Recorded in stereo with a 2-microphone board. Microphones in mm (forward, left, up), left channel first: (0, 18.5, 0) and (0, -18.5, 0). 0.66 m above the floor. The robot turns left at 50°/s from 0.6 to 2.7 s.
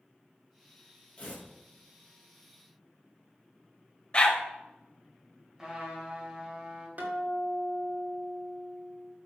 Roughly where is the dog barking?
Left.